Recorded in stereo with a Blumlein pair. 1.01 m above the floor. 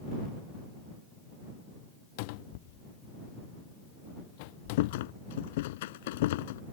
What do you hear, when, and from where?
2.2 s a cupboard door: 45° left
4.8 s a rattle: 55° left